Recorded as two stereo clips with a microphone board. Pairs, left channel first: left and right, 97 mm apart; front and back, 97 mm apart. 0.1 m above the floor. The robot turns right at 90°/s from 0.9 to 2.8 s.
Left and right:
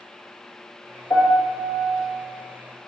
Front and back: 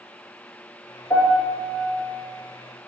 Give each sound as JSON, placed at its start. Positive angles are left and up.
{"t": 1.1, "sound": "a piano", "azimuth_deg": 45, "distance_m": 1.8}